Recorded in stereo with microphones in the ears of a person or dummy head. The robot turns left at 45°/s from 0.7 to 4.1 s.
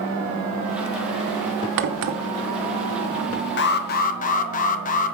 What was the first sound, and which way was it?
A crack, 65° right (ahead or behind).